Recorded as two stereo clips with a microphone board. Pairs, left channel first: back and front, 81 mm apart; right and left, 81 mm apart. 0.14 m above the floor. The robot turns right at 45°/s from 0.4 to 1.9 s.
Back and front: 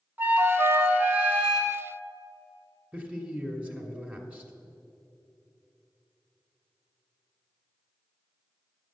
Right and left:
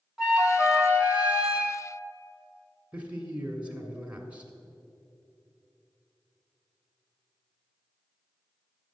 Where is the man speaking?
40° left, 1.1 m.